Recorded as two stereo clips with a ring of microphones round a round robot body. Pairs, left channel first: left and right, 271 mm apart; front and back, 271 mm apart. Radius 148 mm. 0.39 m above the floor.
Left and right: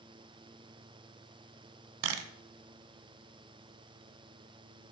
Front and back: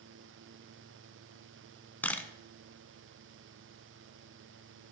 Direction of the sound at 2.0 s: 85° right.